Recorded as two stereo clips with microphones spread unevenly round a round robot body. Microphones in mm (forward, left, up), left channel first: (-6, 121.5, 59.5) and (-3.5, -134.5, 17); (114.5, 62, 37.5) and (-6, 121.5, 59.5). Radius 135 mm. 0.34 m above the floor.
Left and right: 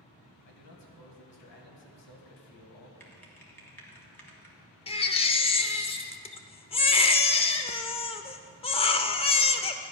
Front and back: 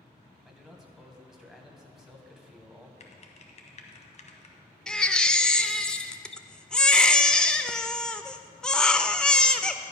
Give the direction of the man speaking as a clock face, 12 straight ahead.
10 o'clock.